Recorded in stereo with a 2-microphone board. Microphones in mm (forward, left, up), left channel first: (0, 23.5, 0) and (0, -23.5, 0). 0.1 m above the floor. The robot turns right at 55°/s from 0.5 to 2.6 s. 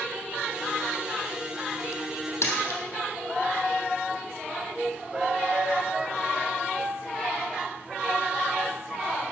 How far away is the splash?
About 3 m.